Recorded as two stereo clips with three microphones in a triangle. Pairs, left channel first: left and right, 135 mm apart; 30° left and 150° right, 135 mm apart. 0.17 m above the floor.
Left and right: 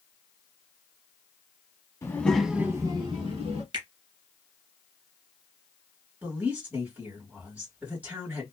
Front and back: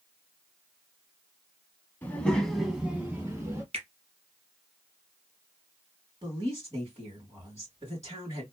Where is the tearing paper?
No tearing paper in this recording.